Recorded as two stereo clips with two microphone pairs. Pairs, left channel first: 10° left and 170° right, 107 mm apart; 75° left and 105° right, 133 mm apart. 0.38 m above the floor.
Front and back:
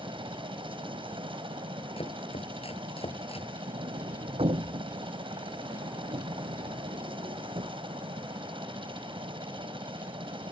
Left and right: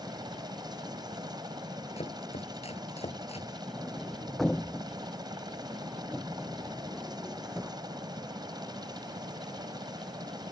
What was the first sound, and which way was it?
A helicopter, 160° right.